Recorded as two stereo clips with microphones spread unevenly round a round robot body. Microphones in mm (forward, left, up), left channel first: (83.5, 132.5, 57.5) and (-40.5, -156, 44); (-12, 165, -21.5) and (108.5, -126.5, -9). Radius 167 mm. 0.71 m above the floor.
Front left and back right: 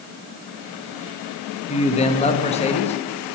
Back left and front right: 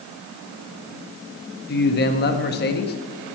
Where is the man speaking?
125° left, 0.8 m.